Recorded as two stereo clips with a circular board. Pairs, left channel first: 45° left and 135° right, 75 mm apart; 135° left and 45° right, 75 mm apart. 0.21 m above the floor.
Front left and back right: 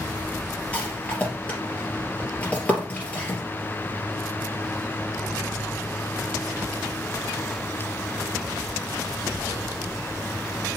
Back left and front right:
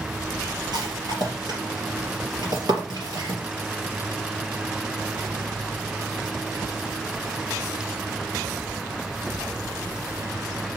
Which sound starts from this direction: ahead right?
A rattle, at 0.7 s.